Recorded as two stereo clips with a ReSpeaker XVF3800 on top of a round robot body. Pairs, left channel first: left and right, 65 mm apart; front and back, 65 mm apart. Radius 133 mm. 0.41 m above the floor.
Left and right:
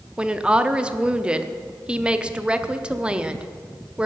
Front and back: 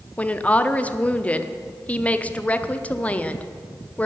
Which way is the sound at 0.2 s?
35° right.